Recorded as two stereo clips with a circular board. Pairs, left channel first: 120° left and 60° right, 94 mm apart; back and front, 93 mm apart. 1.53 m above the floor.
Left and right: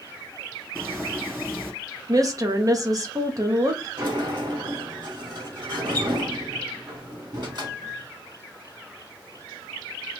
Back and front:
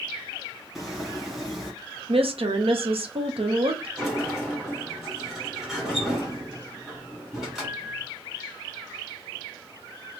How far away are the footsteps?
About 1.6 m.